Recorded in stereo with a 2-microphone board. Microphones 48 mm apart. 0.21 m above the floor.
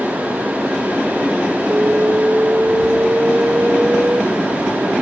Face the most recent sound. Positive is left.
turn(degrees=-30)  # may be behind; listen again after turning